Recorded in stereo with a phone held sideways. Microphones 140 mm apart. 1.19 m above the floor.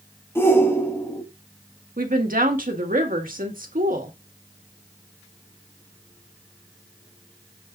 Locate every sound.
0.3 s a shout: 15° left (ahead or behind), 2.5 m
2.0 s a woman speaking: 90° right, 2 m